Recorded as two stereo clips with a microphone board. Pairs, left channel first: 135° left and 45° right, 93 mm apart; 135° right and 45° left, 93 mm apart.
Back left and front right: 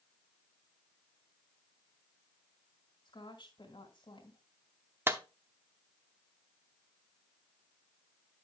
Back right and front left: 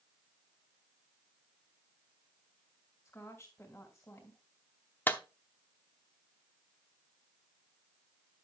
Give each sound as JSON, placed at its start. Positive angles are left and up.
{"t": 3.0, "sound": "a woman speaking", "azimuth_deg": 165, "distance_m": 2.5}
{"t": 5.1, "sound": "a clap", "azimuth_deg": -85, "distance_m": 0.7}